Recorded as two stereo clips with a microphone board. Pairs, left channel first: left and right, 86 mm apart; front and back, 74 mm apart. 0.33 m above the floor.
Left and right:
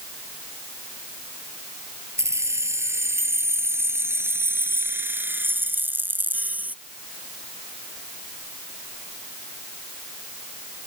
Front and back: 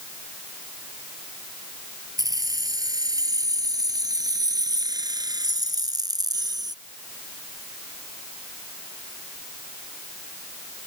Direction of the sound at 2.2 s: 145° right.